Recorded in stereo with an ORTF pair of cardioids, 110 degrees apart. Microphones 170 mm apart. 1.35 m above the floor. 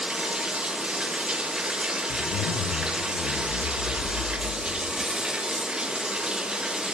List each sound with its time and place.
0.0 s running water: 5° right, 1.2 m
2.1 s a zipper: 60° left, 1.2 m